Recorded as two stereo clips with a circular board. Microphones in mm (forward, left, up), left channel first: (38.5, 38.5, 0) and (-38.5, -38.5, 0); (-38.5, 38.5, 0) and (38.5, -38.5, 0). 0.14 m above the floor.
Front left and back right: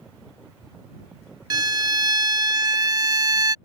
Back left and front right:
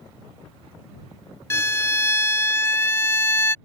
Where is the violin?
165° right.